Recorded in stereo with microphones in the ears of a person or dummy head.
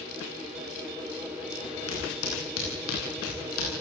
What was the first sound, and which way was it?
Footsteps, 85° left.